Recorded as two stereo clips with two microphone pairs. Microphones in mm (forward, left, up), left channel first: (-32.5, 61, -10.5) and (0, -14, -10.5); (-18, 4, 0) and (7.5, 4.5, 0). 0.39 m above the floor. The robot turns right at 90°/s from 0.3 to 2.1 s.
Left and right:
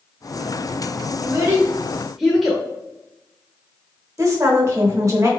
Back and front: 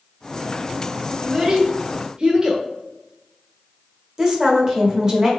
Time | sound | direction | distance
1.2 | a child speaking | 55° right | 0.6 m
4.2 | a woman speaking | 50° right | 1.0 m